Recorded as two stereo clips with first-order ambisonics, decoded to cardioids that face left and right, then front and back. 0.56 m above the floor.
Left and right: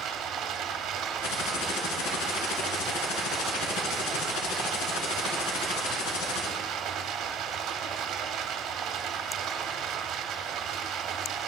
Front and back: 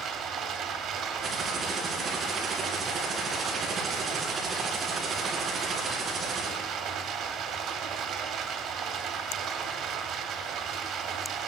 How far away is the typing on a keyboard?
About 2.5 m.